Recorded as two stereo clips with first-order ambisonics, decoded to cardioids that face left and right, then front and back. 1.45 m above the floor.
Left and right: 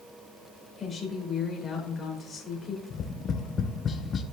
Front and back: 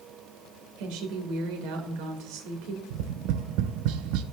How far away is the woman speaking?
About 1.9 m.